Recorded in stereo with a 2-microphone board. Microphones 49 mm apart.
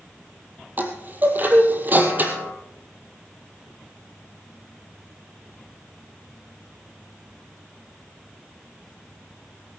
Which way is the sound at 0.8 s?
40° right (ahead or behind).